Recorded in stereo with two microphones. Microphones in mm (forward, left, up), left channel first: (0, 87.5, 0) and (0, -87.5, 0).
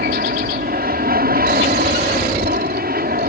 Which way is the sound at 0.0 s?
60° right (ahead or behind).